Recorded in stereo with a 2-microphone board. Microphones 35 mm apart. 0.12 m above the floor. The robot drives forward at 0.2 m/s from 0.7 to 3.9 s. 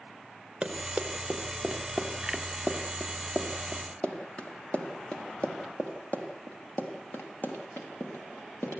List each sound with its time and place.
0.6 s running footsteps: 20° right (ahead or behind), 5 m; by 8.8 s 60° left (ahead or behind), 7.5 m